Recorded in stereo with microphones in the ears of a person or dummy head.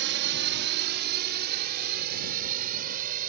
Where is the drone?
60° right (ahead or behind); by 3.3 s 45° right (ahead or behind).